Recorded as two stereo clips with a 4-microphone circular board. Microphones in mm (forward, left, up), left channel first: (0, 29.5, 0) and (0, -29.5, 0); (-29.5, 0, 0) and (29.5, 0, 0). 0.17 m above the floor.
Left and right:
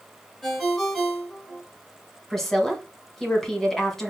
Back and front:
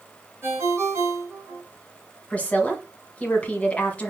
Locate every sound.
0.4 s a ringtone: 5° left, 1.4 m
2.3 s a woman speaking: 165° left, 1.2 m